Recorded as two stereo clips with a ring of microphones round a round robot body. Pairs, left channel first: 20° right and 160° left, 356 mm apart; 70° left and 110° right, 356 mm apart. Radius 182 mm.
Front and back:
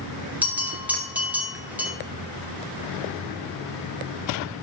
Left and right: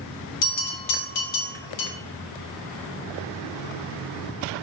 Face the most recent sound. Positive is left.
turn(degrees=70)